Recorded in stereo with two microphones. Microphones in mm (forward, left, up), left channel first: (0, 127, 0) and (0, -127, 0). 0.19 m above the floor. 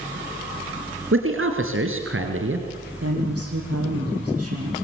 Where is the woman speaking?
75° right (ahead or behind), 8 m.